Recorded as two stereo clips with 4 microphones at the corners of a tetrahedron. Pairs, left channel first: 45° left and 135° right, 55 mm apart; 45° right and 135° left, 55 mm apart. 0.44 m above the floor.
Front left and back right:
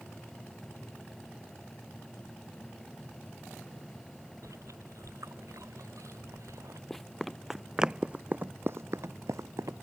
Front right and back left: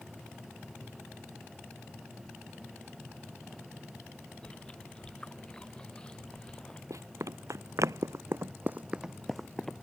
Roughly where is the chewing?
Behind right.